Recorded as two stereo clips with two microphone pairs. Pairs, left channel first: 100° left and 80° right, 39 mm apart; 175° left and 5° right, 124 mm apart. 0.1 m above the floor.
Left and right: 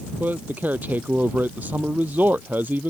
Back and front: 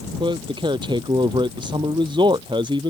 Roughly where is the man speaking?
Ahead right.